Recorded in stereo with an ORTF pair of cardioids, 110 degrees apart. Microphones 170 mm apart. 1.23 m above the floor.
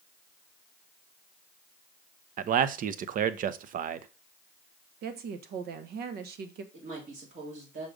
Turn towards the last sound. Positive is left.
turn(degrees=-50)